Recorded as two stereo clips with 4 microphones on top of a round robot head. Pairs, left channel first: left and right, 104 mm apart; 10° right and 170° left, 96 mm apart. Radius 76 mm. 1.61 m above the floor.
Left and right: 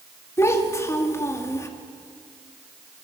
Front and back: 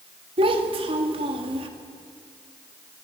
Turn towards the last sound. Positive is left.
turn(degrees=150)